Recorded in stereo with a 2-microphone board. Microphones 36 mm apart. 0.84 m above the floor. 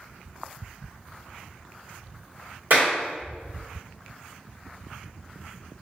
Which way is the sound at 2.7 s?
65° right (ahead or behind).